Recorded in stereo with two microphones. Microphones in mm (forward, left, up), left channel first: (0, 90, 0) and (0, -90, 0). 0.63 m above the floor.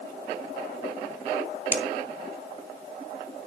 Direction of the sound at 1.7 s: 10° right (ahead or behind).